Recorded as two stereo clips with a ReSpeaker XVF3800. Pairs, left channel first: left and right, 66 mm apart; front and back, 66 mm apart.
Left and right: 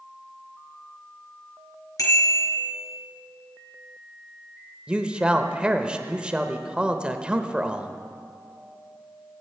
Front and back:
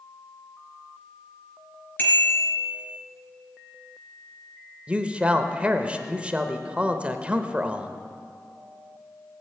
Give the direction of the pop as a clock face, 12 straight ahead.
No pop in this recording.